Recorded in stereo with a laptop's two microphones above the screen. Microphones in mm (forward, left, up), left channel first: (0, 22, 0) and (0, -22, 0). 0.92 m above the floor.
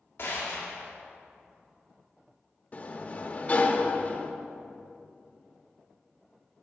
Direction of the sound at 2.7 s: 35° left (ahead or behind).